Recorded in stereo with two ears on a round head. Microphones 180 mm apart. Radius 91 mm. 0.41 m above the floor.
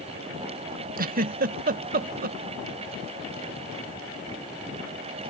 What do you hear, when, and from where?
1.0 s a giggle: 45° right (ahead or behind), 0.5 m